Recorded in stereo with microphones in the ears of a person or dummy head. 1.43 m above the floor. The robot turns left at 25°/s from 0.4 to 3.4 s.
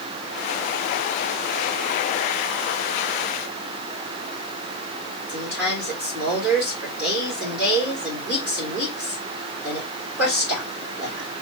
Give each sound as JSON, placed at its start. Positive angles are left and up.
{"t": 5.3, "sound": "a woman speaking", "side_deg": -5, "distance_m": 2.5}